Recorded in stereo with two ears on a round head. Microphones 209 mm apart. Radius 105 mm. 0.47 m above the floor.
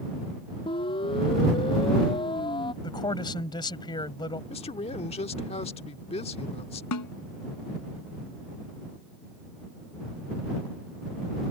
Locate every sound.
0.7 s a siren: 20° left (ahead or behind)
2.8 s a man speaking: 20° left (ahead or behind)
4.5 s a man speaking: 25° left (ahead or behind)
6.9 s a snare drum: 85° left